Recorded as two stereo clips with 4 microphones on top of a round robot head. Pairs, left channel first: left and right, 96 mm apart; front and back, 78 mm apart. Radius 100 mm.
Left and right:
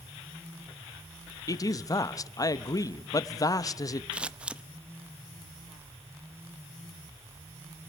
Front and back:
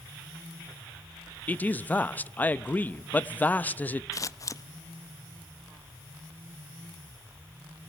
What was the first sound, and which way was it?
A man speaking, 60° left.